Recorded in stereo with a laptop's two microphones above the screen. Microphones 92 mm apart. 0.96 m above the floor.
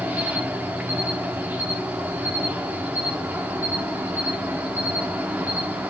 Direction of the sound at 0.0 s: 20° right (ahead or behind).